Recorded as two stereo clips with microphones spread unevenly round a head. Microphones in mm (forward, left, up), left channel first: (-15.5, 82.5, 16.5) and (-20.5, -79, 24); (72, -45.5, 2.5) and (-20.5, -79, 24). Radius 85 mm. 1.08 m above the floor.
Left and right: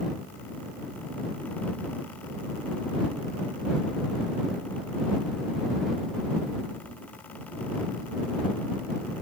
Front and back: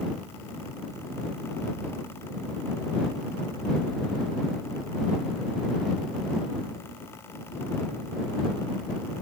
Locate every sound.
Only background noise.